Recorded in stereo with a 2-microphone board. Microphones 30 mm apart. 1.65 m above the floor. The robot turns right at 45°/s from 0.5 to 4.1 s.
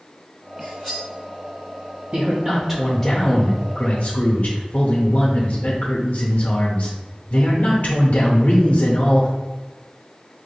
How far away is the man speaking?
About 0.6 m.